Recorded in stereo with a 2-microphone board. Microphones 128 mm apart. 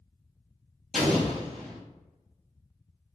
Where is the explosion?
5° left (ahead or behind), 1.2 m.